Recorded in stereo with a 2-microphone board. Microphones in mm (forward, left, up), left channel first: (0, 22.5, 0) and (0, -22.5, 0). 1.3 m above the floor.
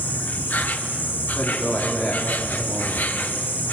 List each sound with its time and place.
0.0 s an insect: 45° left (ahead or behind), 1.4 m
1.4 s a man speaking: 15° left (ahead or behind), 4 m